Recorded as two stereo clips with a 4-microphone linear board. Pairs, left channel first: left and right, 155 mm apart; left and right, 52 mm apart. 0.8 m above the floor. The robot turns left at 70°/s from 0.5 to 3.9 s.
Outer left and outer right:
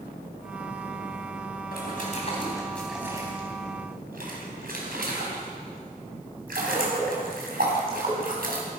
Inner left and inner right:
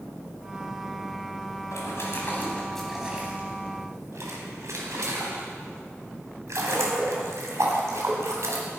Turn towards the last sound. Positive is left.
turn(degrees=-70)  # may be behind; listen again after turning